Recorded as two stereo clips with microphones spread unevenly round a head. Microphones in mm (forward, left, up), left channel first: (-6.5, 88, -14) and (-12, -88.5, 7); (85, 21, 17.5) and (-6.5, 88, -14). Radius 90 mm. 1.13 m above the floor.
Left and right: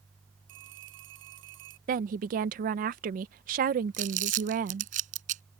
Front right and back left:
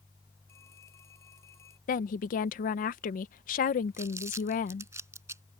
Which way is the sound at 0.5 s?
110° right.